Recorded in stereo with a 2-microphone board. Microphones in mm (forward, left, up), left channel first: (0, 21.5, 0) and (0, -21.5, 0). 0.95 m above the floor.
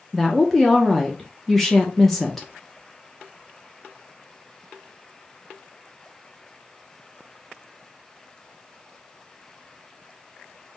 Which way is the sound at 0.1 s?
5° left (ahead or behind).